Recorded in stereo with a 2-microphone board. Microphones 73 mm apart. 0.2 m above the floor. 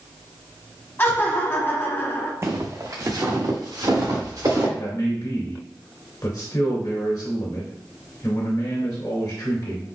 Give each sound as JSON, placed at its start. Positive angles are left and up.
{"t": 1.0, "sound": "laughter", "side_deg": 30, "distance_m": 1.0}
{"t": 2.4, "sound": "footsteps", "side_deg": -40, "distance_m": 0.7}
{"t": 4.8, "sound": "a man speaking", "side_deg": 60, "distance_m": 1.9}